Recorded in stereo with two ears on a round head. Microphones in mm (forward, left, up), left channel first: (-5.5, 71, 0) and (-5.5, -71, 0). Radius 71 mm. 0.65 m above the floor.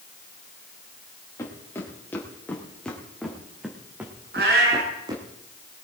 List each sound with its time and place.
1.4 s footsteps: 15° left (ahead or behind), 3.5 m; by 5.2 s 30° right (ahead or behind), 2.5 m
4.3 s a cat meowing: 70° right (ahead or behind), 4 m